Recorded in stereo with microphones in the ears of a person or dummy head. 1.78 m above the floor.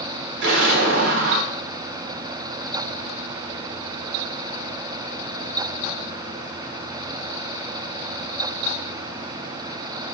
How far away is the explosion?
About 1.4 m.